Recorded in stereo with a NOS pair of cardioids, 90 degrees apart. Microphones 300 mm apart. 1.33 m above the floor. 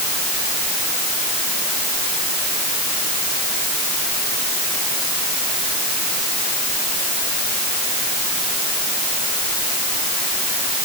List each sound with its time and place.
Only background noise.